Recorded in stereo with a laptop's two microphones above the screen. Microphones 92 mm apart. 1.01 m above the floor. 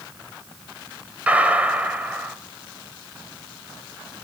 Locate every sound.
1.3 s a gunshot: 15° right (ahead or behind), 2.5 m